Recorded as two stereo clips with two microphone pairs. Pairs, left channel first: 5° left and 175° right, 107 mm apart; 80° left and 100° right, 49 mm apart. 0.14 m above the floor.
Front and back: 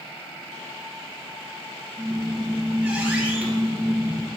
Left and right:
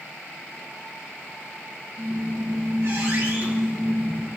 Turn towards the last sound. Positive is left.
turn(degrees=-100)